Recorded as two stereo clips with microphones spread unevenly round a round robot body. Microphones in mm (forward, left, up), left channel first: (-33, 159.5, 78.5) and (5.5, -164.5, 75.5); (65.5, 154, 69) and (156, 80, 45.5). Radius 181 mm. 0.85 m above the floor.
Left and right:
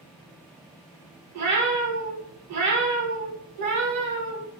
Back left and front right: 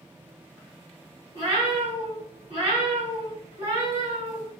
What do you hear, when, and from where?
1.3 s a cat meowing: 150° right, 1.7 m